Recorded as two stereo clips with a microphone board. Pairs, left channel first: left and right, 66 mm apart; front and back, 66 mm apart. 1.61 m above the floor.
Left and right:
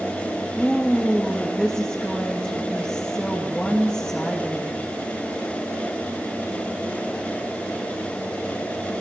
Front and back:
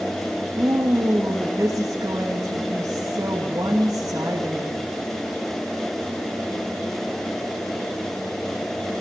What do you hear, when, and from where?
0.6 s a woman speaking: 160° left, 3 m